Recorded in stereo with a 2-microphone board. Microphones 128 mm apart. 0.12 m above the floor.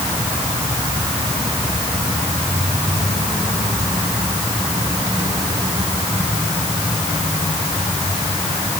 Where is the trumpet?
I don't hear a trumpet.